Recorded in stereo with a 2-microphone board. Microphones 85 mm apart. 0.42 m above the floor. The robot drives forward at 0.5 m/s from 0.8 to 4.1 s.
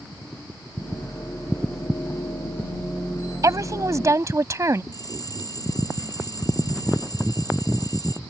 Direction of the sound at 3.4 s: 40° right (ahead or behind).